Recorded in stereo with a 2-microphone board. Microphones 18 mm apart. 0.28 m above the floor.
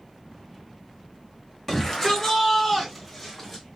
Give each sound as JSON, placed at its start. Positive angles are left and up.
{"t": 1.7, "sound": "a shout", "side_deg": 15, "distance_m": 1.3}